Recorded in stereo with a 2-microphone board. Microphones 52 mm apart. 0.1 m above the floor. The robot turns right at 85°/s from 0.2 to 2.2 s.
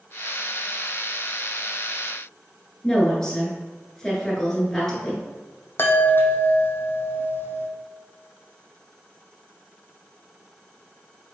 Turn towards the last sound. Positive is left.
turn(degrees=45)  # may be behind; listen again after turning